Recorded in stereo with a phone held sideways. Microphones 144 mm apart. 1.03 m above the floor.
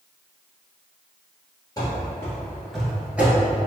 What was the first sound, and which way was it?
Running footsteps, 25° left (ahead or behind).